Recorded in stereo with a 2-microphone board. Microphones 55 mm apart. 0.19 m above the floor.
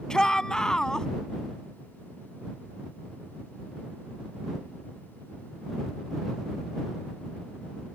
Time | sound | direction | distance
0.1 | a shout | 15° left (ahead or behind) | ?